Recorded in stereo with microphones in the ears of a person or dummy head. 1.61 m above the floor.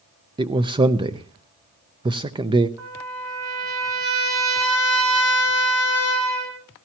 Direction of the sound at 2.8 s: 20° right (ahead or behind).